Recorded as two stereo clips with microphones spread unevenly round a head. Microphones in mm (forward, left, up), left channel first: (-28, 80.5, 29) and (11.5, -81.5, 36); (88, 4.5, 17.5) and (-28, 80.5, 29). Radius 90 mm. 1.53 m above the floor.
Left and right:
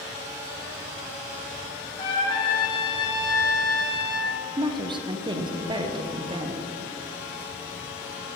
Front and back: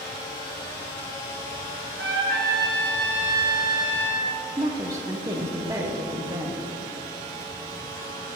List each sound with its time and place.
2.0 s a trumpet: 170° left, 1.3 m
4.6 s a woman speaking: 140° right, 0.7 m